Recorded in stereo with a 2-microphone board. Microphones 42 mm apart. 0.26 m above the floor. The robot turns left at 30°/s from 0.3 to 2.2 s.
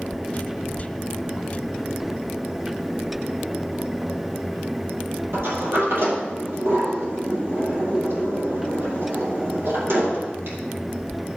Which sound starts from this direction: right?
A sliding door, at 5.3 s.